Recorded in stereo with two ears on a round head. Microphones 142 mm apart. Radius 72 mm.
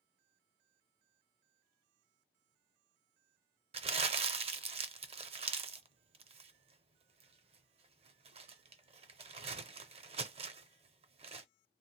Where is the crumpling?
40° right (ahead or behind), 0.5 m.